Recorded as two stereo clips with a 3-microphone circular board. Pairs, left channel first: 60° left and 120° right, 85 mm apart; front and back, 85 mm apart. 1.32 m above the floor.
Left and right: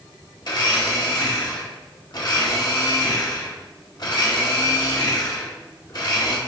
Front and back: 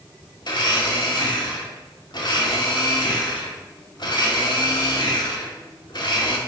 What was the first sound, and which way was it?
A blender, 30° left.